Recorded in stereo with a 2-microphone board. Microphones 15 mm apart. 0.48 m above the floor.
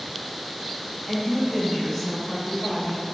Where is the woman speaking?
5° left (ahead or behind), 0.8 m; by 3.0 s 35° left (ahead or behind), 1.8 m.